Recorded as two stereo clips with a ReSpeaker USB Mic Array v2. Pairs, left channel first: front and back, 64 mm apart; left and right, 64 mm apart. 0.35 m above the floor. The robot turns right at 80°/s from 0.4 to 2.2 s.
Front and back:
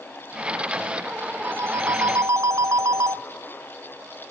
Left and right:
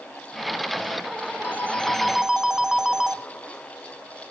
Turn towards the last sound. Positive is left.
turn(degrees=-170)